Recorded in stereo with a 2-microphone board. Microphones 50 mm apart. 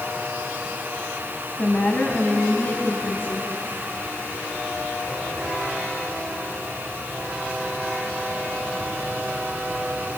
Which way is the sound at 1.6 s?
30° left (ahead or behind).